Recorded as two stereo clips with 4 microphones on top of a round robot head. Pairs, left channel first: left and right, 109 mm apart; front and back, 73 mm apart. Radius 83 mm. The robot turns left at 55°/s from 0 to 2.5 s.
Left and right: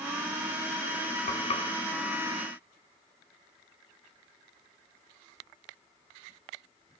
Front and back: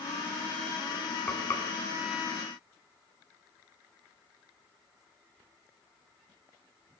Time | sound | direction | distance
1.3 | frying | 70° left | 3 m